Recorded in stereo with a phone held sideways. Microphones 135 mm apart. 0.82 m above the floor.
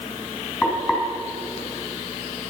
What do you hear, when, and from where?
0.6 s frying: 15° left (ahead or behind), 4.5 m